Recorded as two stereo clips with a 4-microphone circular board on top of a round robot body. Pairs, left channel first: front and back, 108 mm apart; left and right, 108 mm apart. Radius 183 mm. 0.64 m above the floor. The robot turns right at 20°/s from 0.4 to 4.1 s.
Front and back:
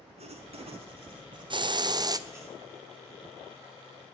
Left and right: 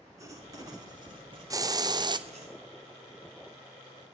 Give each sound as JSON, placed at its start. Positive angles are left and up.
{"t": 0.2, "sound": "writing", "azimuth_deg": -150, "distance_m": 1.5}
{"t": 1.5, "sound": "a hiss", "azimuth_deg": -145, "distance_m": 0.6}